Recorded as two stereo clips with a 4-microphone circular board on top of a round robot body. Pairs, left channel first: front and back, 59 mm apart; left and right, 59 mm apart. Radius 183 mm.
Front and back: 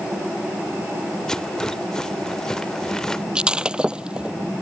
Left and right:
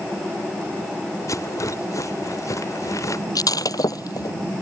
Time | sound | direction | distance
1.3 | a rattle | 80° left | ?
3.4 | breaking glass | 105° left | ?